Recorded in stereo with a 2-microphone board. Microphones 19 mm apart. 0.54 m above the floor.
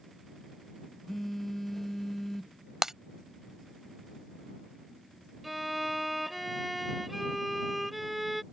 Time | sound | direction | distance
1.1 | a phone buzzing | 15° left (ahead or behind) | ?
2.8 | breaking glass | 25° right (ahead or behind) | ?
5.4 | a violin | 5° right (ahead or behind) | ?